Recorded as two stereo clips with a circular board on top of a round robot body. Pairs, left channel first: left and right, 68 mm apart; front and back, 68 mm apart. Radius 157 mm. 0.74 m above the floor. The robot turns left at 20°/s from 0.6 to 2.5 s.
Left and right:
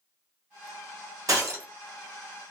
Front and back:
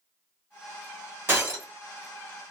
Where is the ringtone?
I don't hear a ringtone.